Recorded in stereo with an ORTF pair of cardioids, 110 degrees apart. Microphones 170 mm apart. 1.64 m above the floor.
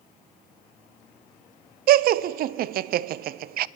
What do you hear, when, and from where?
1.9 s laughter: 65° right, 0.6 m